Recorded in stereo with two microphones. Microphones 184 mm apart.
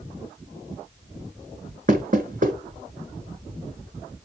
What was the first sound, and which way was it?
Knocking, 45° right (ahead or behind).